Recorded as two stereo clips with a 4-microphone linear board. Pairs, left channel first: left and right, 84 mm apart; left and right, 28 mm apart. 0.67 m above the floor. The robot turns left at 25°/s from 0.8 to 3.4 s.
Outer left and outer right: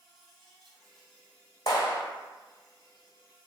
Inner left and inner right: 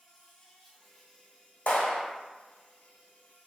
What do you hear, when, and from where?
0.0 s an insect: 175° left, 1.4 m; by 3.5 s 110° left, 1.4 m
1.7 s a clap: 60° left (ahead or behind), 1.4 m